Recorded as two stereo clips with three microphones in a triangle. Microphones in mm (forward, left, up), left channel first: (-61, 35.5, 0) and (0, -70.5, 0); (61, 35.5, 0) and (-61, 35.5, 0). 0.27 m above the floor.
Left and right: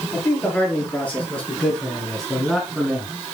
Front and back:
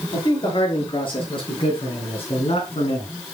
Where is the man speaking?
50° left, 5 m; by 3.1 s 25° left, 3 m.